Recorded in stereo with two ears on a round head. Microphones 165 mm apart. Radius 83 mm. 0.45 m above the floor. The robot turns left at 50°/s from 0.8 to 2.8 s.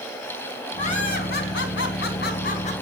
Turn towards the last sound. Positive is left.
turn(degrees=35)